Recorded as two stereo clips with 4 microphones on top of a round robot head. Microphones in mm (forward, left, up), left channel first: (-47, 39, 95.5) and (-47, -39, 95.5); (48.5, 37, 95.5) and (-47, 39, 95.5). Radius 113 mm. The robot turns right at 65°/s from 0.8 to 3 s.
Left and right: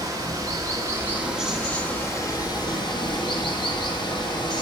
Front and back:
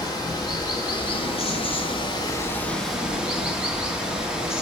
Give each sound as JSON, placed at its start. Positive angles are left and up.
{"t": 0.0, "sound": "running water", "azimuth_deg": -45, "distance_m": 1.7}